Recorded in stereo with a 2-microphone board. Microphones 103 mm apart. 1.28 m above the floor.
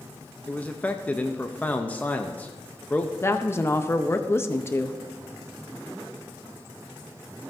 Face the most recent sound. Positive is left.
turn(degrees=25)  # may be behind; listen again after turning